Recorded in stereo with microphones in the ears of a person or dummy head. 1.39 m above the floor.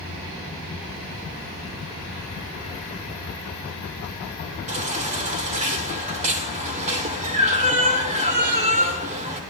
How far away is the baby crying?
About 2 m.